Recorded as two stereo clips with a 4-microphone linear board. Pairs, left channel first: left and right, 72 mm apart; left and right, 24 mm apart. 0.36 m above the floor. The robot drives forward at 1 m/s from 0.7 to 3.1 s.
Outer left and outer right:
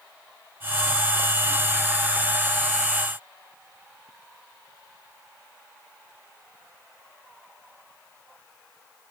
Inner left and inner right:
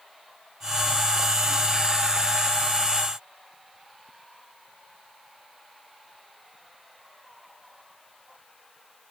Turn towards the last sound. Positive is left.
No sound to turn to.